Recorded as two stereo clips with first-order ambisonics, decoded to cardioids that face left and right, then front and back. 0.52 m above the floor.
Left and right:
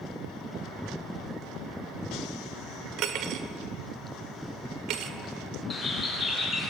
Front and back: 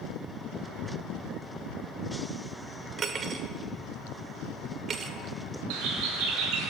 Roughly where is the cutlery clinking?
Behind right.